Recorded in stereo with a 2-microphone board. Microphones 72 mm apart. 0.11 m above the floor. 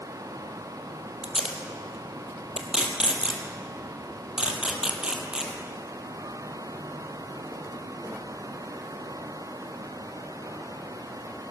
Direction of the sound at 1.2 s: 10° right (ahead or behind).